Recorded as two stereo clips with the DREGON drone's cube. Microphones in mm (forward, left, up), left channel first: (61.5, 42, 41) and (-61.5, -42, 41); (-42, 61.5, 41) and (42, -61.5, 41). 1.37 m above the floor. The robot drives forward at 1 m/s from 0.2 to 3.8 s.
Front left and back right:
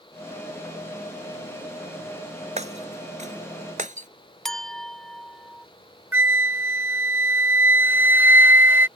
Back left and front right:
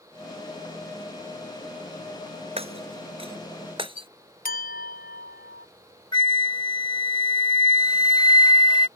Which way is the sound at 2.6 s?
105° right.